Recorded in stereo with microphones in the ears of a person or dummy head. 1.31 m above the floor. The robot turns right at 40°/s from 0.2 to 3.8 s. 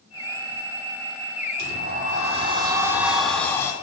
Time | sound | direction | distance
1.6 | a sliding door | 65° right | 3 m